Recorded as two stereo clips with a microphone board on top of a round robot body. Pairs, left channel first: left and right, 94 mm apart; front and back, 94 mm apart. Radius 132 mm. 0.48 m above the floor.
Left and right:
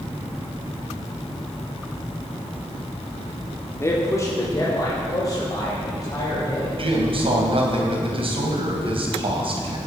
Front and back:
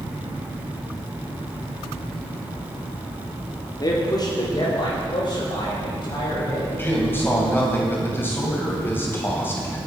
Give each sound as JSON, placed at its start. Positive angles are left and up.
{"t": 3.8, "sound": "a man speaking", "azimuth_deg": 35, "distance_m": 1.9}
{"t": 6.8, "sound": "a man speaking", "azimuth_deg": -70, "distance_m": 3.0}